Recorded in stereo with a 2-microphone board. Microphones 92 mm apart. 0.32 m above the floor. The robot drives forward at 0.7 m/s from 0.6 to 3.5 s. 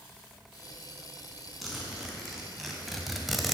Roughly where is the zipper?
Centre.